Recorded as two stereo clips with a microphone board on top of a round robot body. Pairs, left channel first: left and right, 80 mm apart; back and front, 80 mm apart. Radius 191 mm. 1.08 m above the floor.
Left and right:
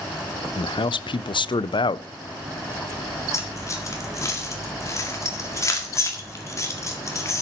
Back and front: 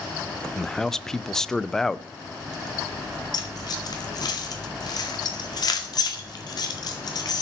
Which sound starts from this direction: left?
A man speaking, at 0.6 s.